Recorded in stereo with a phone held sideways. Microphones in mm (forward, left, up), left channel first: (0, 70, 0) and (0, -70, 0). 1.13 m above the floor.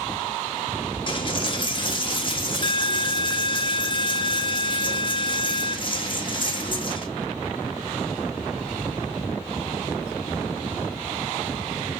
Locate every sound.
1.1 s a dropped coin: 35° left (ahead or behind), 0.7 m